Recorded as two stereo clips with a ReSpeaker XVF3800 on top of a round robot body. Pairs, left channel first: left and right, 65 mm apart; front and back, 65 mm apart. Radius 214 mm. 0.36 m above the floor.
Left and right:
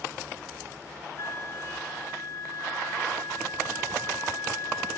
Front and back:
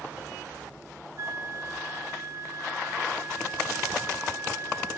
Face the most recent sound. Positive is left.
turn(degrees=130)